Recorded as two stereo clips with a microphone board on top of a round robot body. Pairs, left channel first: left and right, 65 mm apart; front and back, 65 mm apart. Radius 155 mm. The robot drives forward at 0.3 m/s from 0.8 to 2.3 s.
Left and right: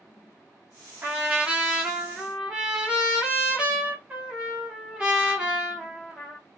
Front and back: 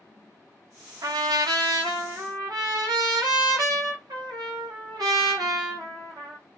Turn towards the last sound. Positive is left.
turn(degrees=-165)